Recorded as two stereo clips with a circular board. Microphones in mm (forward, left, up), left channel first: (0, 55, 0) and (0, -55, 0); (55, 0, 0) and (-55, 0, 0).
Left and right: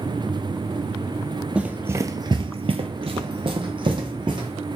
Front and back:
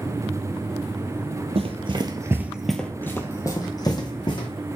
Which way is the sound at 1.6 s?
170° right.